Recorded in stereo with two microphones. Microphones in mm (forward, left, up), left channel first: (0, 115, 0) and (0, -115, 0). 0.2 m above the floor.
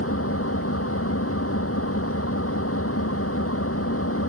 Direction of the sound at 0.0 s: 80° left.